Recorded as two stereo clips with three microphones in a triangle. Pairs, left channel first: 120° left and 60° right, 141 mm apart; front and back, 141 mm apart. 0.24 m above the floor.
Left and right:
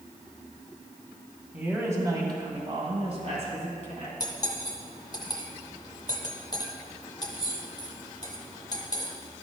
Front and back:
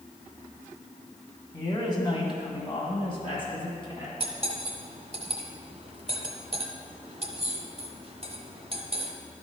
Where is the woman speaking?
10° left, 1.7 m; by 4.1 s 45° right, 3 m.